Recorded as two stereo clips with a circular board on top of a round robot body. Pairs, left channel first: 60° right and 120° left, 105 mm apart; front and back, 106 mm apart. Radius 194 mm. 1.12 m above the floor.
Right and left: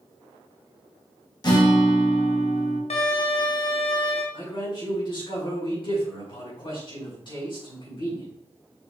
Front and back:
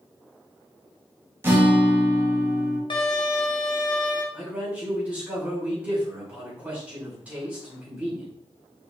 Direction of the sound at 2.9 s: 45° right.